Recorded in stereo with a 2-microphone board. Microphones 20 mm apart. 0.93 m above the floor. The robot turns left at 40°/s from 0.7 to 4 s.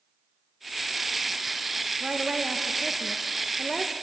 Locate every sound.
2.0 s a woman speaking: 115° right, 0.5 m; by 3.9 s 170° left, 0.5 m